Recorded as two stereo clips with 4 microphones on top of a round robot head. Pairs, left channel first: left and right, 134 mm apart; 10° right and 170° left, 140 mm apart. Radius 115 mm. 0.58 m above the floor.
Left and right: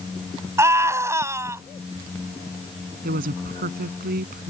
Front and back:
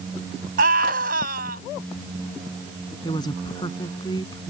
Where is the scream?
160° right.